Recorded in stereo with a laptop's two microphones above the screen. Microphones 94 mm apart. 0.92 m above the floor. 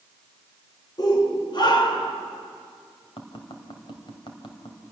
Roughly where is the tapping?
Left.